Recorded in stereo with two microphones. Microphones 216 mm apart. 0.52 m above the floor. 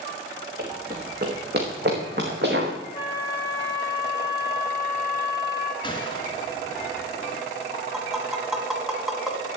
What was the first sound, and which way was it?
Running footsteps, 45° right (ahead or behind).